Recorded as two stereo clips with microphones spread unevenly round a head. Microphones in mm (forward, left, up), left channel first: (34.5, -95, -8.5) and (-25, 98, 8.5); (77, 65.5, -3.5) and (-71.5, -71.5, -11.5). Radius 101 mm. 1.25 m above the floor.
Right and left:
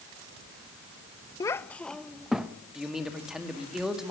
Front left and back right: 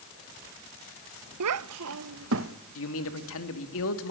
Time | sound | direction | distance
1.4 | a child speaking | 145° right | 0.6 m
2.8 | a man speaking | 20° left | 2.5 m